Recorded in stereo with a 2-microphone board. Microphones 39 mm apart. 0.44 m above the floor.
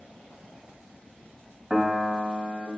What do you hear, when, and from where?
1.7 s a piano: 5° right (ahead or behind), 0.5 m